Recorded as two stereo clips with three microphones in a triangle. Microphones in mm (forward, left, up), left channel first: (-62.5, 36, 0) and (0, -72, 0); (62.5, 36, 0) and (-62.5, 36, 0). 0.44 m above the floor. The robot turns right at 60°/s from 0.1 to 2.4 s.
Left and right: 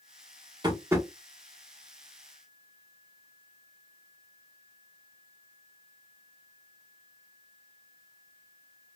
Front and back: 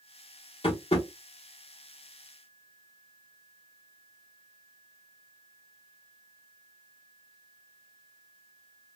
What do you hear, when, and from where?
0.6 s tapping: 20° right, 1.2 m; by 1.1 s 5° left, 1.2 m